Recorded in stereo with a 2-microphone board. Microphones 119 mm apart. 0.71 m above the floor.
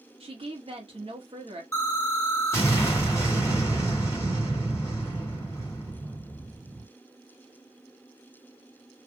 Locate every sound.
0.2 s a woman speaking: 50° right (ahead or behind), 1.5 m
1.7 s an explosion: 20° left (ahead or behind), 1.8 m